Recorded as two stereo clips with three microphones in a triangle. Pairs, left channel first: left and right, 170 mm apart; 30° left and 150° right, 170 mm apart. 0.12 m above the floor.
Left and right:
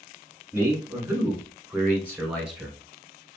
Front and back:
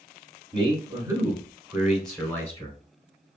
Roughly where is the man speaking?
Behind right.